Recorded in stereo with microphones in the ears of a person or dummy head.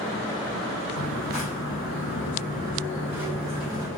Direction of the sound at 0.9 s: 40° left (ahead or behind).